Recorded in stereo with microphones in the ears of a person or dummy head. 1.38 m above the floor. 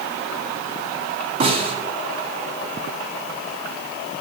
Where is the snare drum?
55° right (ahead or behind), 1.7 m.